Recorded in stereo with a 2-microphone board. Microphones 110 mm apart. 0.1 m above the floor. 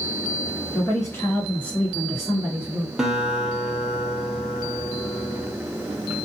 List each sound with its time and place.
0.7 s a woman speaking: 35° left (ahead or behind), 1.5 m; by 2.9 s 15° right (ahead or behind), 1.5 m
3.0 s a guitar: 5° right (ahead or behind), 0.7 m